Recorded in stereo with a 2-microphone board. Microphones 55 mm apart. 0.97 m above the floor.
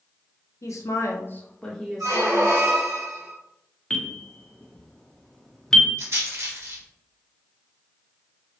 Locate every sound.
0.6 s a woman speaking: 65° left (ahead or behind), 0.6 m; by 2.5 s 10° right (ahead or behind), 1.2 m
2.0 s a squeak: 60° right (ahead or behind), 0.9 m
3.9 s a bell: 10° left (ahead or behind), 0.6 m
6.0 s a rattle: 55° right (ahead or behind), 1.1 m